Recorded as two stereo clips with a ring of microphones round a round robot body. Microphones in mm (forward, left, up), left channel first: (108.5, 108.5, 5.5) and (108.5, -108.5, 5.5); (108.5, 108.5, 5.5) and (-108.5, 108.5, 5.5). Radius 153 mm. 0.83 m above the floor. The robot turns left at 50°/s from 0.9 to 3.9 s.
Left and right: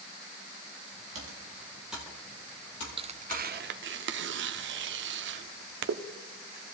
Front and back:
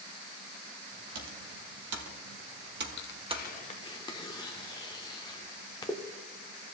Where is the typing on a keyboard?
140° right, 1.6 m; by 3.5 s 100° left, 1.6 m.